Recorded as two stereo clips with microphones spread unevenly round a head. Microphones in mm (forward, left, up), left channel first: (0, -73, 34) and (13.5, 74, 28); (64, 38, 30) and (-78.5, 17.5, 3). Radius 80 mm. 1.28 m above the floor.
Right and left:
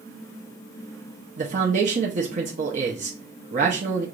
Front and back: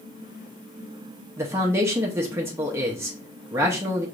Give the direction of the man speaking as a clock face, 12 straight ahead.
8 o'clock.